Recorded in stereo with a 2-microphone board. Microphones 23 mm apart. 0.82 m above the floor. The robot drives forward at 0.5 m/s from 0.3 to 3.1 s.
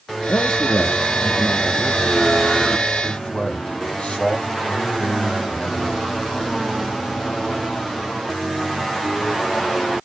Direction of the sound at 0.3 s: 65° left (ahead or behind).